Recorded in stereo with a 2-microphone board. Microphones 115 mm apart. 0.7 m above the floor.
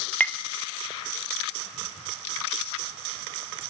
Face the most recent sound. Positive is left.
turn(degrees=15)  # may be behind; listen again after turning